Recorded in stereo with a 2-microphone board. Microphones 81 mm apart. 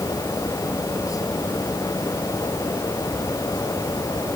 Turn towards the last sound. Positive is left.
No sound to turn to.